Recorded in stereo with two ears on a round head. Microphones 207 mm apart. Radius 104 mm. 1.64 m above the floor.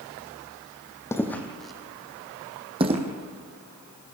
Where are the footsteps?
10° left (ahead or behind), 3 m; by 3.0 s 30° right (ahead or behind), 2.5 m.